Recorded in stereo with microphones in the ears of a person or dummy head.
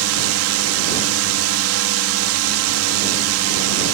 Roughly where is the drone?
Right.